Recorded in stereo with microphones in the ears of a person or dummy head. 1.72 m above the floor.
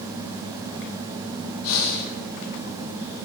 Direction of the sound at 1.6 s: 70° left (ahead or behind).